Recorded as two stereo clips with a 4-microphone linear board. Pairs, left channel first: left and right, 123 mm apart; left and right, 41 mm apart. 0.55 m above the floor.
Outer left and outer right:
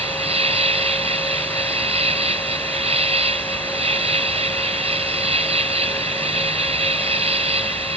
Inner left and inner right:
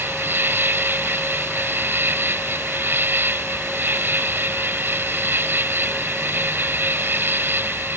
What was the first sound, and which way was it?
An insect, 65° right (ahead or behind).